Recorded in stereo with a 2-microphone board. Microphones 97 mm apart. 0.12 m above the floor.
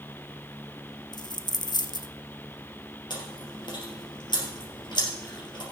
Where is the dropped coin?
50° left (ahead or behind), 0.7 m.